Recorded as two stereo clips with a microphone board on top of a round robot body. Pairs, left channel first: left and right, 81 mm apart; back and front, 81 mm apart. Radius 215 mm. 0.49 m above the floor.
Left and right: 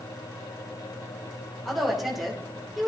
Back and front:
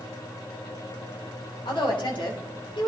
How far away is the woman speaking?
About 3.5 m.